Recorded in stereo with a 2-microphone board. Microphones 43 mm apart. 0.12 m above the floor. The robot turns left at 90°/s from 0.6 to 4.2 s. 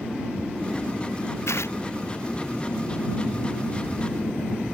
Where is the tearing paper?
85° left; by 1.8 s 70° left (ahead or behind).